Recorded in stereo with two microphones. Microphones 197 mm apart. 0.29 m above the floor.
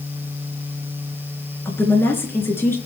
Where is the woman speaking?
10° left (ahead or behind), 3.5 m.